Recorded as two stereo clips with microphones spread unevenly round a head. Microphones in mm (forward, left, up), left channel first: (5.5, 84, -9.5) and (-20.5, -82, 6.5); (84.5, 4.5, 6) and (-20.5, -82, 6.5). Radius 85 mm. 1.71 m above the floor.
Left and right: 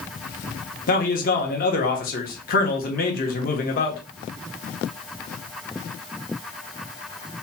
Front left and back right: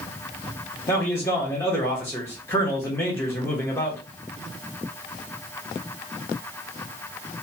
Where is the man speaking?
115° left, 0.9 m.